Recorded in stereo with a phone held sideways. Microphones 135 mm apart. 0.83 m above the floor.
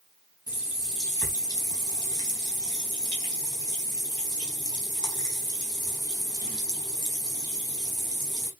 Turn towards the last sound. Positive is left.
turn(degrees=30)  # may be behind; listen again after turning